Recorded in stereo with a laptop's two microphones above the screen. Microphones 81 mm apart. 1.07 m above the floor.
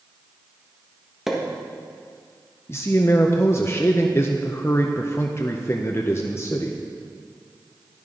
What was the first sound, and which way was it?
A pop, 5° right (ahead or behind).